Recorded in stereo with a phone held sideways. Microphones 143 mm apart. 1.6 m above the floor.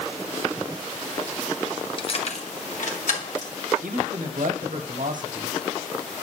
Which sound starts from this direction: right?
A man speaking, at 3.8 s.